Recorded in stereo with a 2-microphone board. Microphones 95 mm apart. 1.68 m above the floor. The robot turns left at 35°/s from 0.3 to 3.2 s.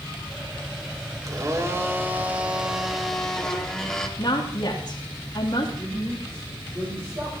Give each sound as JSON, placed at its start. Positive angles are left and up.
{"t": 1.3, "sound": "a blender", "azimuth_deg": -120, "distance_m": 1.8}
{"t": 4.2, "sound": "a woman speaking", "side_deg": 50, "distance_m": 2.5}
{"t": 5.8, "sound": "a woman speaking", "side_deg": -30, "distance_m": 4.5}